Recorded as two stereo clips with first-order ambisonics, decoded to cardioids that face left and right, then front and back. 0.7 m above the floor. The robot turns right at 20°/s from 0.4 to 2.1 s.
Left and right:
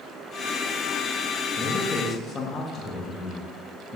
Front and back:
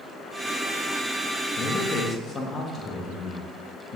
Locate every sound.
1.6 s a man speaking: 35° left, 0.6 m; by 4.0 s 45° left, 0.6 m